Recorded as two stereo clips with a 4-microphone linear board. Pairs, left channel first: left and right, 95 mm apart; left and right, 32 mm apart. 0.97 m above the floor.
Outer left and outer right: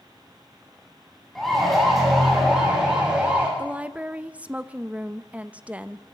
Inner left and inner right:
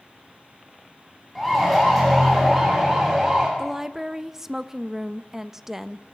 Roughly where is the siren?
Centre.